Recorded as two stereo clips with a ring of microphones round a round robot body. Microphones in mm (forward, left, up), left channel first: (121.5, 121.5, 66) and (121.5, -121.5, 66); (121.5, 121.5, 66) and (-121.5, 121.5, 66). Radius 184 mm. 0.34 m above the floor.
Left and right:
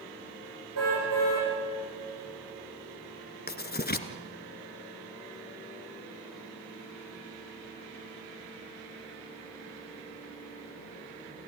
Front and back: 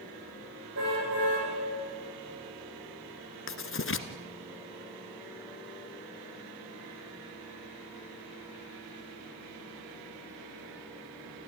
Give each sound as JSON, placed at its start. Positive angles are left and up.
{"t": 0.8, "sound": "a car horn", "azimuth_deg": -125, "distance_m": 9.0}
{"t": 3.5, "sound": "writing", "azimuth_deg": 40, "distance_m": 1.4}